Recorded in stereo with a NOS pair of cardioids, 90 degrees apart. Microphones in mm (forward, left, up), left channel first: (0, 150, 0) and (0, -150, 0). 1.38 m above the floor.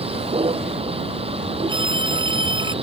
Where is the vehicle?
20° right.